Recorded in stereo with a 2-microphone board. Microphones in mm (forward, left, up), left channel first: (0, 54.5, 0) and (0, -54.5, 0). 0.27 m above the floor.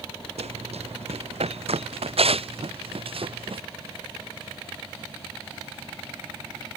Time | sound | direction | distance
0.4 | running footsteps | 85° right | ?